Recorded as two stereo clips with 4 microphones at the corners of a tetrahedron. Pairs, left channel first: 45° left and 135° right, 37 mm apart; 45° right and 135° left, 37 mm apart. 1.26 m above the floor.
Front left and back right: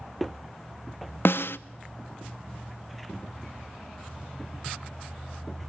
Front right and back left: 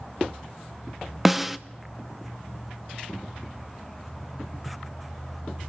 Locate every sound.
1.2 s a snare drum: 50° left, 0.7 m